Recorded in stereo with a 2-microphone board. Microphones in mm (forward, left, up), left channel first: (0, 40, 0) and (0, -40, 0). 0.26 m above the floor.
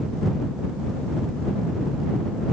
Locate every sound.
Only background noise.